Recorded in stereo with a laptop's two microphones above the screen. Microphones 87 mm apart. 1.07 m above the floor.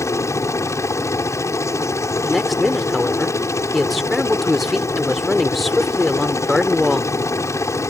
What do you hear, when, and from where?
0.0 s a helicopter: 35° left (ahead or behind)
2.3 s a woman speaking: centre (ahead or behind)